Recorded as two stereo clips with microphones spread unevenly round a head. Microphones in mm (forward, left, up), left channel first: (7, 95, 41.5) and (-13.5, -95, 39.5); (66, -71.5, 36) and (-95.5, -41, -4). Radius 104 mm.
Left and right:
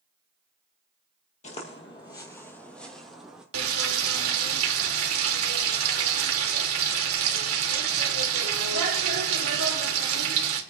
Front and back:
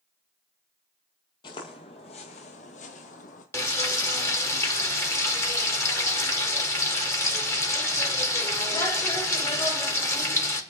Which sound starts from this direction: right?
Frying, at 3.5 s.